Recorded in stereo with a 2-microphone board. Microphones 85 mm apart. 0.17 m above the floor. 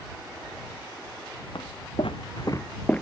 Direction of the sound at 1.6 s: 70° left (ahead or behind).